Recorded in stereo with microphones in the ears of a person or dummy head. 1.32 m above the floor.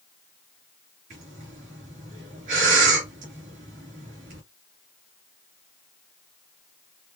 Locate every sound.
1.1 s breathing: 45° right (ahead or behind), 3 m